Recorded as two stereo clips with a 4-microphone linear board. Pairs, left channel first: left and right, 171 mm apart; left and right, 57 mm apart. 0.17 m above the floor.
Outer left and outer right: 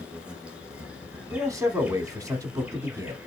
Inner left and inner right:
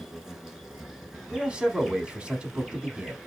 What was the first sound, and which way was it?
An insect, 5° right (ahead or behind).